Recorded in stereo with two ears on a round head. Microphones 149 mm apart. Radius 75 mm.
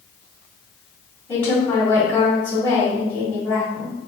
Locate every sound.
1.3 s a woman speaking: 10° left (ahead or behind), 1.8 m